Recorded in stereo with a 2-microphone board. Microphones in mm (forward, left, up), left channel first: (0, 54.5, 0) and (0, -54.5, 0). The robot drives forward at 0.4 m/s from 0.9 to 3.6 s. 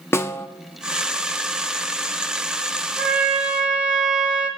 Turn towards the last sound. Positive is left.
turn(degrees=-10)  # may be behind; listen again after turning